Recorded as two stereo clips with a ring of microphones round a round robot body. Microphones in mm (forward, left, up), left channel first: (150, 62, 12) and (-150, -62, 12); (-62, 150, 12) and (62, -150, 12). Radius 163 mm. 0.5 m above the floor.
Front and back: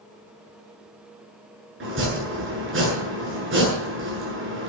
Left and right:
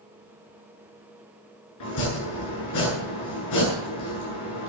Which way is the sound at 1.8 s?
150° left.